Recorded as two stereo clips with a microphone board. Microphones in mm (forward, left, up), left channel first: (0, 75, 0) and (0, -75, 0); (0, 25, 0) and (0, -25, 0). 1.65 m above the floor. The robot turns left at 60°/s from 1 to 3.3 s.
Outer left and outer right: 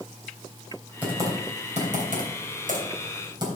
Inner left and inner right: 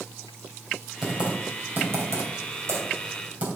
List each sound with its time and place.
1.0 s typing on a keyboard: 10° right (ahead or behind), 3 m; by 3.5 s 30° right (ahead or behind), 3 m